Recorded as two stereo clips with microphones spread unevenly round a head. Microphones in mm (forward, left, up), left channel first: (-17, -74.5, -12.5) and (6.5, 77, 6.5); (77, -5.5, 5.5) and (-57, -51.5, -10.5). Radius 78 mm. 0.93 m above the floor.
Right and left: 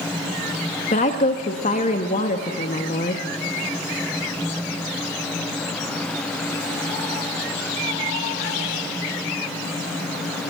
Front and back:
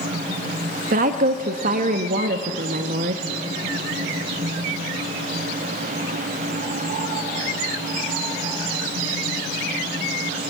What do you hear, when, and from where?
0.9 s a woman speaking: 140° right, 1.1 m